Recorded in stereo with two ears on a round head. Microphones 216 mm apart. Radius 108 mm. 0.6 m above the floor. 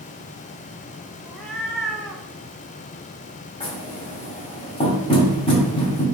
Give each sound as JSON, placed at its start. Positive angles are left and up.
{"t": 1.2, "sound": "a cat meowing", "side_deg": 0, "distance_m": 0.5}
{"t": 3.6, "sound": "knocking", "side_deg": 20, "distance_m": 1.6}